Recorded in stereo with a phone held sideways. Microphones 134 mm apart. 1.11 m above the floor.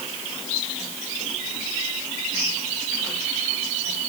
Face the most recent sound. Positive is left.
No sound to turn to.